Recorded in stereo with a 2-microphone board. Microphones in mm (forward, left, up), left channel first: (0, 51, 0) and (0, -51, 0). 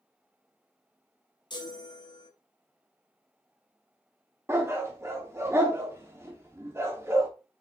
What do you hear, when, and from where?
1.5 s a chime: 45° left (ahead or behind), 1.0 m
4.5 s a dog barking: 25° right (ahead or behind), 0.9 m